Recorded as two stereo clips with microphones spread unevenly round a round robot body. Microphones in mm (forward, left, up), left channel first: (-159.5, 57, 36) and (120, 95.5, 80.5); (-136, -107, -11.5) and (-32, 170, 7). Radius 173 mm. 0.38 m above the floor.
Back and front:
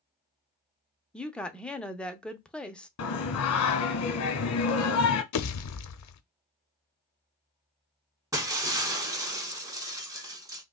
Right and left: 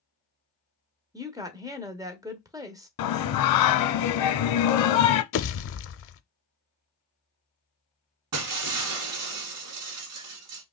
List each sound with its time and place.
1.1 s a woman speaking: 135° left, 0.8 m
3.0 s singing: 125° right, 0.8 m
5.3 s a pop: 155° right, 0.6 m
8.3 s breaking glass: 85° left, 1.3 m